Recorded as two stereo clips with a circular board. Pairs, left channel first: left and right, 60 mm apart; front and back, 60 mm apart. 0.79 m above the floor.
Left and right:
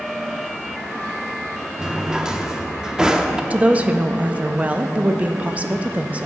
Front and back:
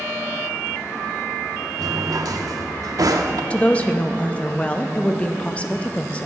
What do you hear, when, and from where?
1.8 s a drawer: 170° right, 0.6 m
3.5 s a woman speaking: 50° right, 0.5 m